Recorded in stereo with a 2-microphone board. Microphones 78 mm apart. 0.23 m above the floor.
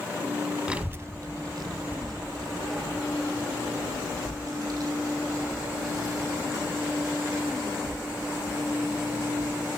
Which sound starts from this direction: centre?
A child speaking, at 0.7 s.